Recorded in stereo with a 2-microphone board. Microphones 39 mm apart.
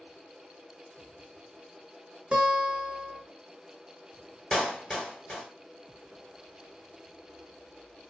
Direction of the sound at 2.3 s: 30° right (ahead or behind).